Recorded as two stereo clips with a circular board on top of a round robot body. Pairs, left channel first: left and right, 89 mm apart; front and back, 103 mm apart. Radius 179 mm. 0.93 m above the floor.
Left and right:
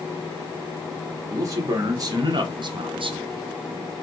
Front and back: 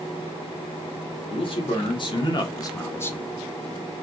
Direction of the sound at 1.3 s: 35° right.